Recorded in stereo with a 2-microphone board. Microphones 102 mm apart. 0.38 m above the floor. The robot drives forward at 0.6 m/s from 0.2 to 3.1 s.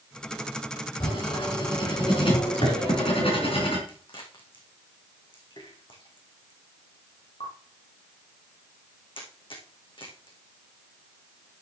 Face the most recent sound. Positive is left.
turn(degrees=55)  # may be behind; listen again after turning